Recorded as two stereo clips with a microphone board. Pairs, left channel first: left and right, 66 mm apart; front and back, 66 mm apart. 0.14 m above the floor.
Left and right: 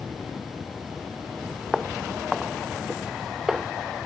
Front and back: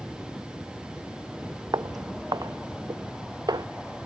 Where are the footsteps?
175° right.